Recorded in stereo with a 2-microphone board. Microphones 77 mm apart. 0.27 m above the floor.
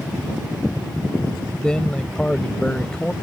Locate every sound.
1.6 s a man speaking: 10° left (ahead or behind)